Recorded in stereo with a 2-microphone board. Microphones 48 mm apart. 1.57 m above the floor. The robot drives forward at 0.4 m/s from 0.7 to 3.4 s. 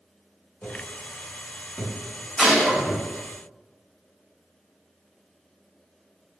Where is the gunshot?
5° right (ahead or behind), 1.2 m.